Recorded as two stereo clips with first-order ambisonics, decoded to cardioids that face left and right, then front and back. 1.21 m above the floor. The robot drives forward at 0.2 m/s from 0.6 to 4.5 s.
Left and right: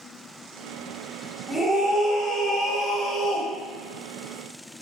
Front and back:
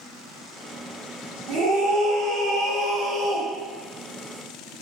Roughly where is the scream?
Behind.